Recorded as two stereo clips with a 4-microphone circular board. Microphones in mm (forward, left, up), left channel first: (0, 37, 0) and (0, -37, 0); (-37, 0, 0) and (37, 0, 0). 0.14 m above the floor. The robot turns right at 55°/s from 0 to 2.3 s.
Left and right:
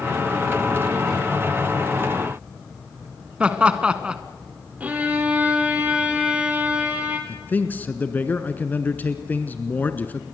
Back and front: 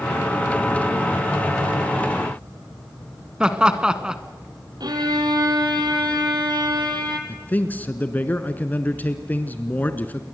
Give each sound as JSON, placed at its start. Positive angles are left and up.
{"t": 3.4, "sound": "laughter", "azimuth_deg": -50, "distance_m": 1.2}
{"t": 4.8, "sound": "a violin", "azimuth_deg": -20, "distance_m": 3.0}
{"t": 7.3, "sound": "a man speaking", "azimuth_deg": 135, "distance_m": 1.3}